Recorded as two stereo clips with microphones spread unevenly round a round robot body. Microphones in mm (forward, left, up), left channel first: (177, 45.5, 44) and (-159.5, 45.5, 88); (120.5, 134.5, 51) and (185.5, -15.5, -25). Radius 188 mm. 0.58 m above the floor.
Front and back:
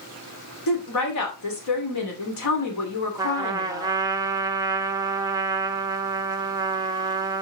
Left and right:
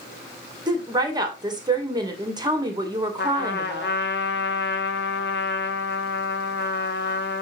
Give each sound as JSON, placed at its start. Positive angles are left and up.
{"t": 0.7, "sound": "a woman speaking", "azimuth_deg": -20, "distance_m": 2.5}
{"t": 3.2, "sound": "a trumpet", "azimuth_deg": 95, "distance_m": 1.2}